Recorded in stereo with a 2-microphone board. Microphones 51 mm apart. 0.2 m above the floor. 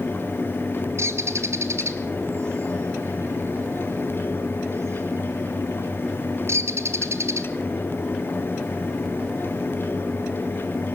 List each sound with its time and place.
1.0 s a bird: 55° right (ahead or behind), 1.6 m